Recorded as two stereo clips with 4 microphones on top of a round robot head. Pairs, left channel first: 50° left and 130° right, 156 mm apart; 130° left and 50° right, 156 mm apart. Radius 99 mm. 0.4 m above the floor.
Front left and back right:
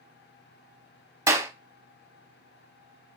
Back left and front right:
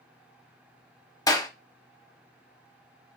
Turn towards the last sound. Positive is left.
turn(degrees=175)